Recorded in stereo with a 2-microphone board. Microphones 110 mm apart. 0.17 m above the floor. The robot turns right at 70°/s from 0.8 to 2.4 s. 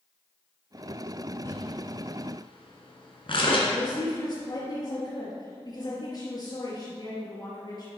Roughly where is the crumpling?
Left.